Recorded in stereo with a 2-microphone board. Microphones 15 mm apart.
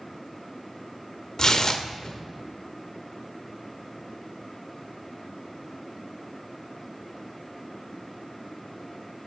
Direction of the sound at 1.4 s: 35° left (ahead or behind).